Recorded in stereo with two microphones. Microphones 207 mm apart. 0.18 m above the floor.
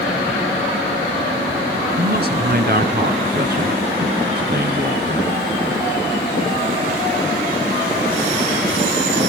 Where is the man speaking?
50° right (ahead or behind), 2 m.